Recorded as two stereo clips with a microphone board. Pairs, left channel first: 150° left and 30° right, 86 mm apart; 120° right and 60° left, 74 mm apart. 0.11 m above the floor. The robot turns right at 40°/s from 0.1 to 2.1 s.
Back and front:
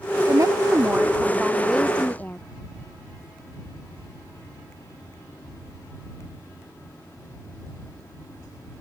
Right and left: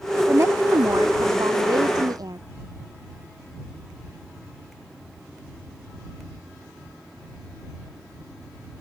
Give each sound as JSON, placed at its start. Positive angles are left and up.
{"t": 0.3, "sound": "a woman speaking", "azimuth_deg": 10}